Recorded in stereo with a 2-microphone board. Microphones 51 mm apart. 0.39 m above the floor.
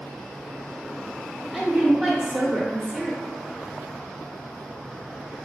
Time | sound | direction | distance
1.5 | a woman speaking | 5° left (ahead or behind) | 0.9 m